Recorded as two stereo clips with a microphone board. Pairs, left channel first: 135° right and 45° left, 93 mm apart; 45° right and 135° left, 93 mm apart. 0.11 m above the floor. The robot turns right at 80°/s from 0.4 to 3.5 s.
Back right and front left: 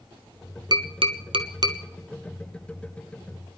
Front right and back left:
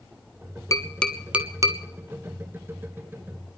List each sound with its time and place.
0.7 s tapping: 10° left, 0.9 m; by 1.8 s 95° left, 0.9 m